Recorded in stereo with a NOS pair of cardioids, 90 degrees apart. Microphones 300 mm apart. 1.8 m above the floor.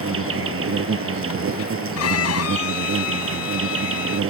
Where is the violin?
60° left.